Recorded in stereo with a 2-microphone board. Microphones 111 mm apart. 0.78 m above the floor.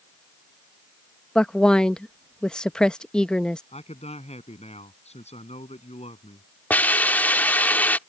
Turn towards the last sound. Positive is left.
turn(degrees=15)  # may be behind; listen again after turning